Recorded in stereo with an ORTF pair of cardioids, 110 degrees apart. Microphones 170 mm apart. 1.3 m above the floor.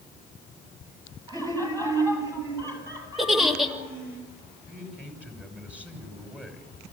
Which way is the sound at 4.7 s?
5° right.